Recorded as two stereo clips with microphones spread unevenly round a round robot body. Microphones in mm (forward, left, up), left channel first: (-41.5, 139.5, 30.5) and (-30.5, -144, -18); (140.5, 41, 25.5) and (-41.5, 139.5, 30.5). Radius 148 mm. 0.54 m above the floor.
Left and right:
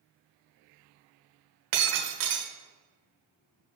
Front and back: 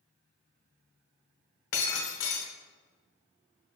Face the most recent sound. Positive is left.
turn(degrees=-60)